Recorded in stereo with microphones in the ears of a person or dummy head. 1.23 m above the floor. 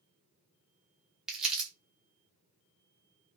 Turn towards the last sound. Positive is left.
turn(degrees=0)  # may be behind; listen again after turning